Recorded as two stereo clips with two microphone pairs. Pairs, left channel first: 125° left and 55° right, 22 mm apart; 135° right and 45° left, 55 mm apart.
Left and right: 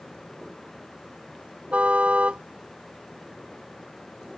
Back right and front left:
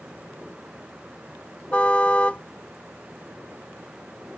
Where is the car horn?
65° right.